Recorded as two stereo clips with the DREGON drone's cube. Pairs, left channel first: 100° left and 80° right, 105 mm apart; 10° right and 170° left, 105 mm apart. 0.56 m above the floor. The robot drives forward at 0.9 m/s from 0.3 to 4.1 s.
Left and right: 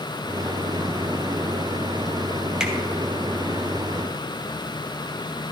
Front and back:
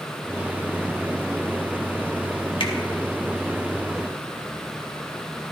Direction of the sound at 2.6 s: Straight ahead.